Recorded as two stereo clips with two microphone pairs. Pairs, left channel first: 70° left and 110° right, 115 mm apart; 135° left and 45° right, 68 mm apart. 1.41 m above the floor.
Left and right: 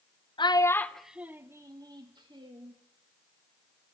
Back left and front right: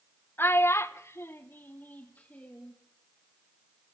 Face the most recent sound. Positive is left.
turn(degrees=-155)